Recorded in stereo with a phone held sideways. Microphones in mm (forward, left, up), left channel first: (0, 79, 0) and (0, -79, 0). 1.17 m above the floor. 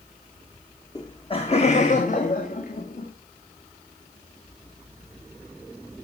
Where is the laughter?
20° left (ahead or behind), 1.0 m; by 3.1 s 65° left (ahead or behind), 2.5 m.